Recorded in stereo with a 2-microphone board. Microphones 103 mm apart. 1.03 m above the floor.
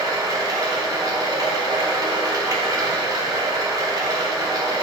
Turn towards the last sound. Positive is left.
turn(degrees=-40)  # may be behind; listen again after turning